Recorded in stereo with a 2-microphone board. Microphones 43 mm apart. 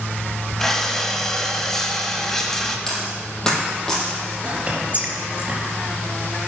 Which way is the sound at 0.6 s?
10° left (ahead or behind).